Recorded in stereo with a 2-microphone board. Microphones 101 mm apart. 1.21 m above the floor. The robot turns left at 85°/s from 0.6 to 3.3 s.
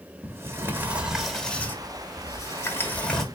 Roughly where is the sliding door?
Behind right.